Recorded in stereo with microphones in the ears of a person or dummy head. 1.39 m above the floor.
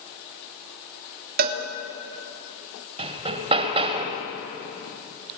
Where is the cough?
I don't hear a cough.